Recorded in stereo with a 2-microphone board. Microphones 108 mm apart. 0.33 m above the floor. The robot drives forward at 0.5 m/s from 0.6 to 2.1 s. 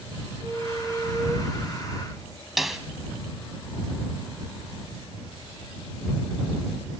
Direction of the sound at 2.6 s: Centre (ahead or behind).